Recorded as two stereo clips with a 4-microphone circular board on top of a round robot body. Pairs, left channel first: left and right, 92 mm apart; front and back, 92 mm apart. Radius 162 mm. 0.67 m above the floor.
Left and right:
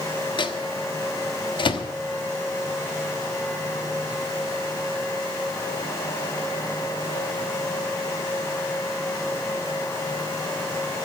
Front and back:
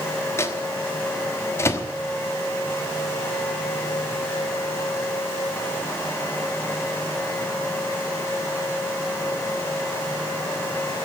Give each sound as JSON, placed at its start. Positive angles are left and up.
{"t": 0.4, "sound": "a microwave", "azimuth_deg": 60, "distance_m": 1.2}